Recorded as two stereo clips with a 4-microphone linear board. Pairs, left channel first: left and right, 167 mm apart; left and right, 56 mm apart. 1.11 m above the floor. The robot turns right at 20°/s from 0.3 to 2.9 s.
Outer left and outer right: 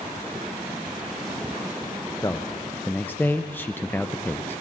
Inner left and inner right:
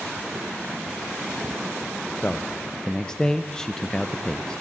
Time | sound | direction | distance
2.2 | a man speaking | 20° left (ahead or behind) | 0.5 m